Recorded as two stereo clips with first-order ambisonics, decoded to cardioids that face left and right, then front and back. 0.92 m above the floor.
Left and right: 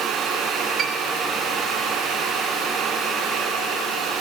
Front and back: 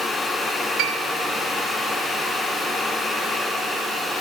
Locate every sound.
0.8 s a piano: 150° right, 3 m